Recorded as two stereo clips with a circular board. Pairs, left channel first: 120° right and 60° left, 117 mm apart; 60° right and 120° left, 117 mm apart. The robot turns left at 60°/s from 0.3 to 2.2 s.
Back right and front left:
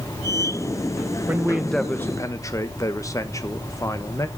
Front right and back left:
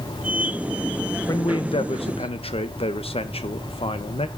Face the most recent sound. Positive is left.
turn(degrees=-65)